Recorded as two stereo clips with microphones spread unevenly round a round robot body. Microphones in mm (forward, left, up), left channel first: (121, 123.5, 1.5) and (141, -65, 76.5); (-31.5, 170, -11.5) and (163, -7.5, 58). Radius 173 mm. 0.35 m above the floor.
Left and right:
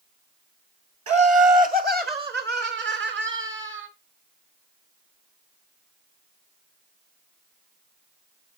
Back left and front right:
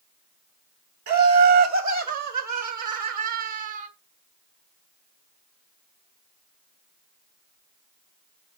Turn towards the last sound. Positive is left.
turn(degrees=-55)